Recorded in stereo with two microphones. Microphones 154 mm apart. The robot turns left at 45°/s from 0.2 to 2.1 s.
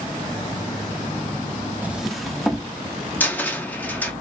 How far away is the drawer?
About 0.6 m.